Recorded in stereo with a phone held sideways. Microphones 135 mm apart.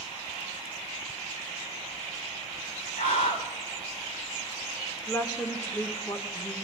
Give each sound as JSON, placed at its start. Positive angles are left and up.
{"t": 3.0, "sound": "a scream", "side_deg": 75, "distance_m": 4.0}
{"t": 5.1, "sound": "a woman speaking", "side_deg": 20, "distance_m": 1.3}